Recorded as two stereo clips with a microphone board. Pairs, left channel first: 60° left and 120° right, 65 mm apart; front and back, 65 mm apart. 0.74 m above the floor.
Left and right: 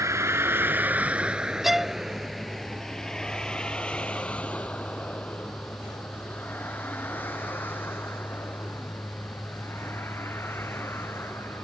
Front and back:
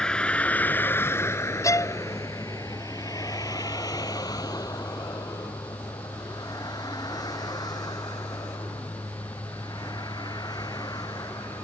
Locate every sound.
0.0 s a vehicle: 80° right; by 11.7 s 5° left
1.6 s a violin: 35° right